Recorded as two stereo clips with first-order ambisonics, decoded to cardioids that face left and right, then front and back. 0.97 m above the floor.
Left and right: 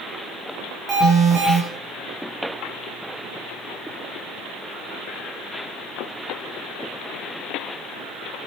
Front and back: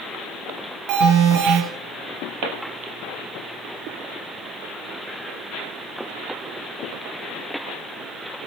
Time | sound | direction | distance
0.9 | an alarm | 165° right | 8 m